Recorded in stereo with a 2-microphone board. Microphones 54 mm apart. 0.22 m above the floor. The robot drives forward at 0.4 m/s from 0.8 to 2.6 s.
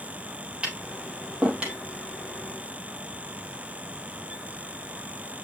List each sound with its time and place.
0.6 s tapping: 20° right (ahead or behind), 4 m; by 1.8 s 15° right (ahead or behind), 4.5 m